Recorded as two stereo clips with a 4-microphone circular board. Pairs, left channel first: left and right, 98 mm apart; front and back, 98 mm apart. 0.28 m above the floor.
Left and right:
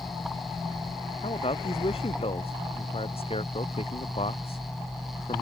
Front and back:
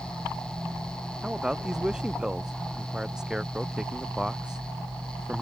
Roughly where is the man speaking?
Left.